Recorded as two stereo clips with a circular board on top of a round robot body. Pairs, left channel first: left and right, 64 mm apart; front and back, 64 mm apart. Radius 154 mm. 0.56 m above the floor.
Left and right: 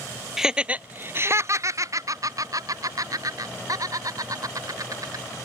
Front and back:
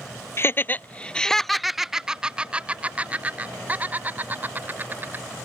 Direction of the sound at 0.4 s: 10° right.